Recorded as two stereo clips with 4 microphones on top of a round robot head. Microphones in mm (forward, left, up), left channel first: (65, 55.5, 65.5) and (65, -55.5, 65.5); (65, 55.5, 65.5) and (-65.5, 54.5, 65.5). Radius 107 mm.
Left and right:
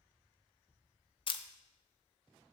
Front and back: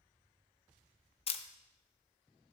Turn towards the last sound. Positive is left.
turn(degrees=45)